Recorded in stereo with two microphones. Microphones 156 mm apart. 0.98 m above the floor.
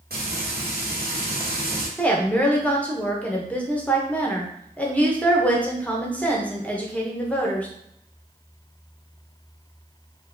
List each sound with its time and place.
0.1 s frying: 80° right, 1.0 m
2.0 s a woman speaking: 10° left (ahead or behind), 0.8 m